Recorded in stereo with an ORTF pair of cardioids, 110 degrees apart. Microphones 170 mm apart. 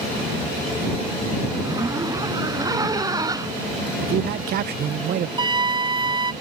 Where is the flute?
30° right.